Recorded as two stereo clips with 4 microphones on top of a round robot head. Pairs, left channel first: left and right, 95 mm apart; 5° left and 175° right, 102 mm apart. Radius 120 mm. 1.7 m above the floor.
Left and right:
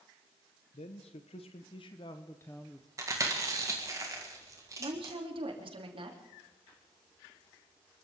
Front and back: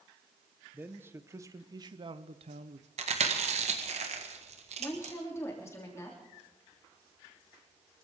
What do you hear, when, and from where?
0.7 s a man speaking: 110° left, 1.3 m; by 2.9 s 175° right, 0.8 m
3.0 s chewing: 155° right, 1.8 m
4.8 s a woman speaking: 65° right, 3 m